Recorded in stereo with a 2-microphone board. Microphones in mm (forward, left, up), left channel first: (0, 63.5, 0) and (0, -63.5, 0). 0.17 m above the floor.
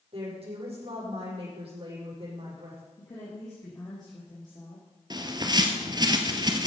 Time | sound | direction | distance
0.1 | a woman speaking | 50° right (ahead or behind) | 8 m
3.0 | a woman speaking | 30° left (ahead or behind) | 4.5 m
5.1 | a bird | 35° right (ahead or behind) | 1.3 m